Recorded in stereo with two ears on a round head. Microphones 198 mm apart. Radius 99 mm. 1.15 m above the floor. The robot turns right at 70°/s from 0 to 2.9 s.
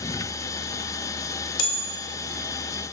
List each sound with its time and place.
1.6 s a bell: 60° left (ahead or behind), 1.8 m; by 1.8 s 75° left (ahead or behind), 1.8 m